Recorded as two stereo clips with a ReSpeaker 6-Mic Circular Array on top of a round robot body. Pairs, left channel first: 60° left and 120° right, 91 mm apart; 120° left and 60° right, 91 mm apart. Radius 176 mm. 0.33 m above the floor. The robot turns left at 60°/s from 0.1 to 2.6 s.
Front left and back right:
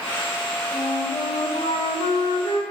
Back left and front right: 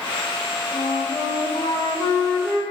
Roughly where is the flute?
Behind left.